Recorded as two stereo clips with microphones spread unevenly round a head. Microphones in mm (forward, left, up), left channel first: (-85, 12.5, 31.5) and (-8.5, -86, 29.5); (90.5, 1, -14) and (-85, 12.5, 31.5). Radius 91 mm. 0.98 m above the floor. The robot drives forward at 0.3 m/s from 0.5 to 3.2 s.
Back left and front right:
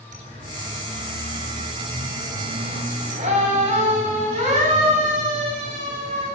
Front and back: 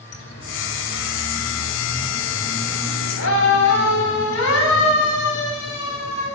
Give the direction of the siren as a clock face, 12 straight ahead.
12 o'clock.